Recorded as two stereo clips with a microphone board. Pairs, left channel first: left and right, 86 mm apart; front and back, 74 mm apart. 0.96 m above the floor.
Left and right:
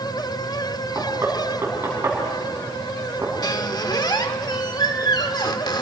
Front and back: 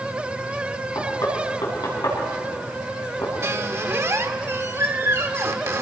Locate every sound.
0.9 s knocking: 25° right, 6 m
3.4 s a squeak: 130° left, 1.1 m